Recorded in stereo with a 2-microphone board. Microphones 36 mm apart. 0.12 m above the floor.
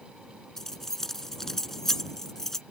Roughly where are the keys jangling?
Centre.